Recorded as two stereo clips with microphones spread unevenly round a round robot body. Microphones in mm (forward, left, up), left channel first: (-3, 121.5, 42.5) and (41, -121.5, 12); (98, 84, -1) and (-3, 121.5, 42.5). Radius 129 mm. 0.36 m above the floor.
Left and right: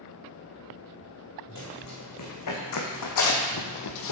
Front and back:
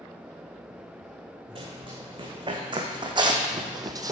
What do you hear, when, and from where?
1.6 s running footsteps: 125° left, 2 m; by 4.1 s 115° left, 1.0 m